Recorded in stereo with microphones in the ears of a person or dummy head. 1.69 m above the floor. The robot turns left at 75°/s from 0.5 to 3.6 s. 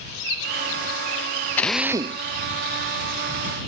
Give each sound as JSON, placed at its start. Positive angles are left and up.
{"t": 1.6, "sound": "a drill", "azimuth_deg": 15}